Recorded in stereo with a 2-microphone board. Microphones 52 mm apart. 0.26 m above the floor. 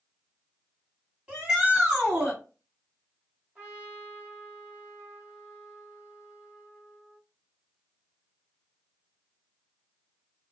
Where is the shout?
20° right (ahead or behind), 1.8 m.